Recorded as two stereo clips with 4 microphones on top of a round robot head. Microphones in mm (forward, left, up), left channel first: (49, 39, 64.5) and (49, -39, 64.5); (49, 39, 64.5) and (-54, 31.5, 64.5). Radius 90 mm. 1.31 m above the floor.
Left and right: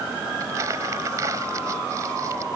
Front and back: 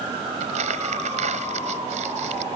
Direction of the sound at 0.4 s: 150° right.